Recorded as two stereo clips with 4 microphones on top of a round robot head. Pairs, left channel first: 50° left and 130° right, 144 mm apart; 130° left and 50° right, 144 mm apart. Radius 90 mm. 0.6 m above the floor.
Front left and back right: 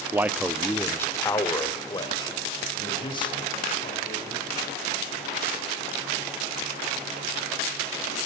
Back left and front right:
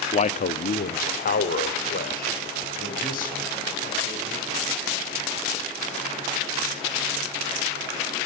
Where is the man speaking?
160° left, 0.8 m; by 4.8 s 105° left, 5.5 m.